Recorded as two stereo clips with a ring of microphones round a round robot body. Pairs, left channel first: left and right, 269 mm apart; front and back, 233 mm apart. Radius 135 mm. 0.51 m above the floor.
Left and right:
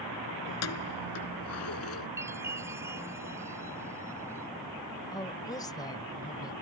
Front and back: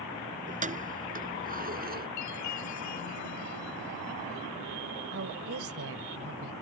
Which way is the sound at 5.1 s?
165° left.